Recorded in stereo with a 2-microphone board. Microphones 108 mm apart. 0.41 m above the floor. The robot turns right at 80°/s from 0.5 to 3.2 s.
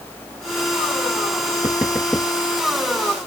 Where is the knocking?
35° right (ahead or behind); by 2.3 s 20° left (ahead or behind).